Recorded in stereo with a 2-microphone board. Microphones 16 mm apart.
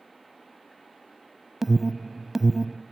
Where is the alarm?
15° right (ahead or behind), 0.7 m.